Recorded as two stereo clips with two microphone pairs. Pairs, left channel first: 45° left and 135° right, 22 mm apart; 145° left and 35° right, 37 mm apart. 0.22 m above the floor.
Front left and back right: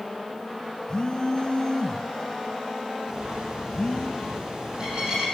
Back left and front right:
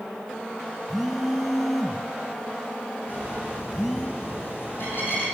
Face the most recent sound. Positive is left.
turn(degrees=170)